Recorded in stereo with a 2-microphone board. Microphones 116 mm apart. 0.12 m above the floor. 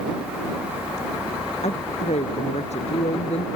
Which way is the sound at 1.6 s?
75° left (ahead or behind).